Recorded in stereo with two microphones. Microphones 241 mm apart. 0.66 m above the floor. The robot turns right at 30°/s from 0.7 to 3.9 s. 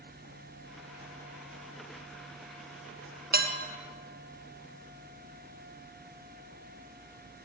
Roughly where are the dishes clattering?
Right.